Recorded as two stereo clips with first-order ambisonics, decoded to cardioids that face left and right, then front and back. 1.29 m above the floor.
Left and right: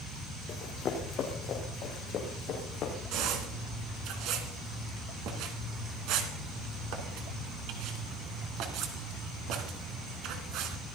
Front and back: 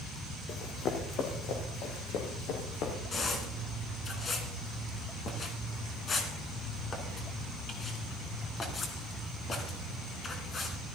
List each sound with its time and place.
0.5 s running footsteps: 40° left, 2.5 m
3.1 s a squeak: 65° right, 2.5 m